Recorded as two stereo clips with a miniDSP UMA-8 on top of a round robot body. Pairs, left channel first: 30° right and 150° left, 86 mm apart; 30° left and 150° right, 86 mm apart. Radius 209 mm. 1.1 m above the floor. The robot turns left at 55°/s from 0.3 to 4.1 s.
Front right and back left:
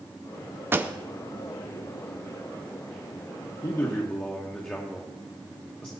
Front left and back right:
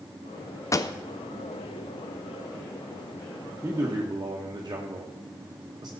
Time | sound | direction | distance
0.7 | a pop | 85° left | 0.5 m
3.6 | a man speaking | 80° right | 1.3 m